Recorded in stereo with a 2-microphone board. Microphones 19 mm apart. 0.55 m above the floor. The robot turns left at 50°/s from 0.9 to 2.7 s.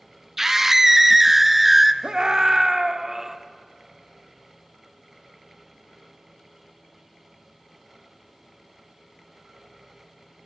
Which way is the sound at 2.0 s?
115° right.